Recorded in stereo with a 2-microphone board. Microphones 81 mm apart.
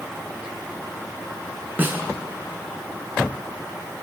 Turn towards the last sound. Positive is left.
turn(degrees=-25)  # may be behind; listen again after turning